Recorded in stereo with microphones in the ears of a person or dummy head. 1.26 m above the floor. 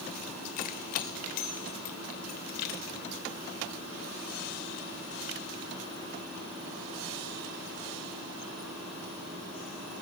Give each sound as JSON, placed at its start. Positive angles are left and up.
{"t": 0.6, "sound": "keys jangling", "side_deg": 55, "distance_m": 3.0}